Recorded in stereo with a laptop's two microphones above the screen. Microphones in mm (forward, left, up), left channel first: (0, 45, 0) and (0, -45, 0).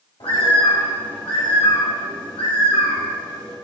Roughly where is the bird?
Left.